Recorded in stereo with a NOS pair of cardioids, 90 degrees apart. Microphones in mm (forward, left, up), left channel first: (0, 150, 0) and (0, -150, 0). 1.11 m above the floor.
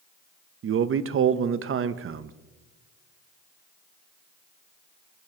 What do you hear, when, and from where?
0.6 s a man speaking: 45° right, 0.8 m